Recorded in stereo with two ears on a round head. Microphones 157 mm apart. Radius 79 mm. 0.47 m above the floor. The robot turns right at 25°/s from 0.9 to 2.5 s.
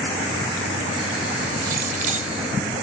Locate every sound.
1.6 s keys jangling: 55° right (ahead or behind), 1.4 m; by 2.3 s 40° right (ahead or behind), 1.4 m